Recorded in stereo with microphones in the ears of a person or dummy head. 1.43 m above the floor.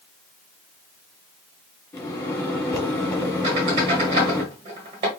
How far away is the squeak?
About 1.2 m.